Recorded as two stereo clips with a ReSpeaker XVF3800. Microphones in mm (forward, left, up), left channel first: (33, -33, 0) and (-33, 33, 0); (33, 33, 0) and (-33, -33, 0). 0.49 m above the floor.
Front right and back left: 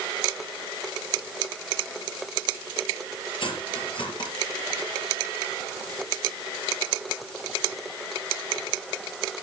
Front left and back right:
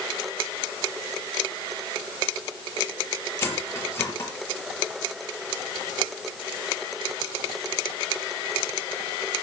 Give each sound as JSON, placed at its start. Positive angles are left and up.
{"t": 3.4, "sound": "cutlery clinking", "azimuth_deg": -20, "distance_m": 5.5}